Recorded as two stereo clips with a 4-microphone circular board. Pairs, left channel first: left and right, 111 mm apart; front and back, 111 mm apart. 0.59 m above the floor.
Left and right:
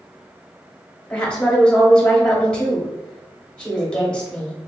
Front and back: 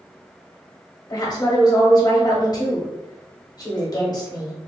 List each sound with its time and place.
1.1 s a woman speaking: 15° left, 1.2 m